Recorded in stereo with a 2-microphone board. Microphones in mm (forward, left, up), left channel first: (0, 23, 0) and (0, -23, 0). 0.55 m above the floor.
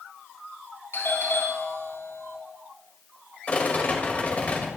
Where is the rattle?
35° left (ahead or behind), 2.5 m.